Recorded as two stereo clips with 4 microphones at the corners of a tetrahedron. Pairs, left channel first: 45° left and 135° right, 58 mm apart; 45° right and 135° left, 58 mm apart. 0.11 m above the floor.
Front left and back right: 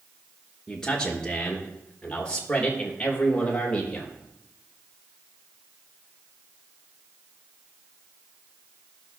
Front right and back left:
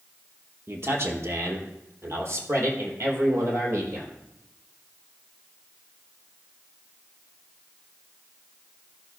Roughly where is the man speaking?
Behind left.